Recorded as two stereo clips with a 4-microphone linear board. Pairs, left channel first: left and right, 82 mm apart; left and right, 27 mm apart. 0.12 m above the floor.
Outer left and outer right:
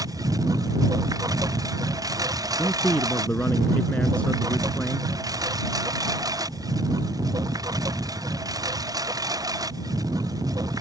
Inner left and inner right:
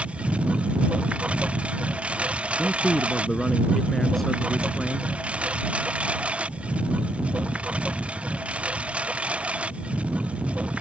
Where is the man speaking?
15° left (ahead or behind).